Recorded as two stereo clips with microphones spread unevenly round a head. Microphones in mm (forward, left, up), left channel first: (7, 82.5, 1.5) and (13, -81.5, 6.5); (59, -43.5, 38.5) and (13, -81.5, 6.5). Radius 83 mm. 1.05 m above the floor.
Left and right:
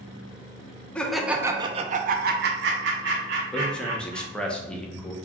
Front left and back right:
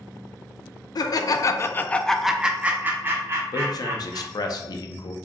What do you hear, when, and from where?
0.9 s laughter: 10° left, 0.6 m; by 4.5 s 115° right, 1.5 m
3.5 s a man speaking: 10° left, 0.6 m